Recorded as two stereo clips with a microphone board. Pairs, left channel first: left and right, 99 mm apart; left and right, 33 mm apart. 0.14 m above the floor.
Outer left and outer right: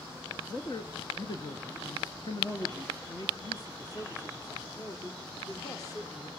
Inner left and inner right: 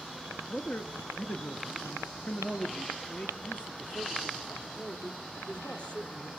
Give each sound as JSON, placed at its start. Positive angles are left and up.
{"t": 0.5, "sound": "a man speaking", "side_deg": 45, "distance_m": 2.0}